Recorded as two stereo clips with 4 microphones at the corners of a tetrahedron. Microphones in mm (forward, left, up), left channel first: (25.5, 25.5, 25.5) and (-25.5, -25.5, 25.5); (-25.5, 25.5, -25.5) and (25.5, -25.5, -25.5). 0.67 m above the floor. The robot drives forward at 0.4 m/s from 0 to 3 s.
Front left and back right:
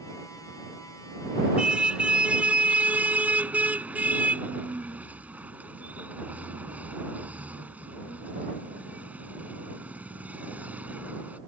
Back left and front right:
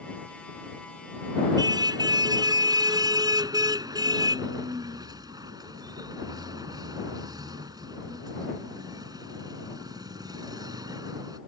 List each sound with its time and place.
1.6 s a car horn: 60° right; by 11.4 s 65° right